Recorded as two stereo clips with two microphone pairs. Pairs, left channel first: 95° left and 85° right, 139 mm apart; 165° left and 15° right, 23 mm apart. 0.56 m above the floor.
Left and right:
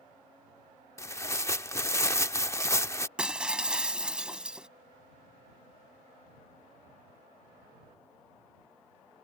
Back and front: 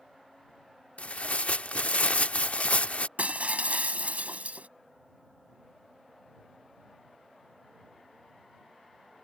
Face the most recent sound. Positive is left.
turn(degrees=-5)